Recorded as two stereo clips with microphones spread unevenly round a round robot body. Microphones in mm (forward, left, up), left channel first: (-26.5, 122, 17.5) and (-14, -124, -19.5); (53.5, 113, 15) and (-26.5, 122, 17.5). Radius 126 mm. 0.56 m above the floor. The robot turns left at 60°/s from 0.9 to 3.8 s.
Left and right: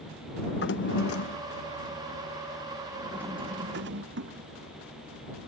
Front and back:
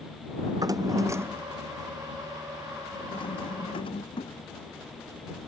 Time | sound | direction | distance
0.5 | a drawer | 135° left | ?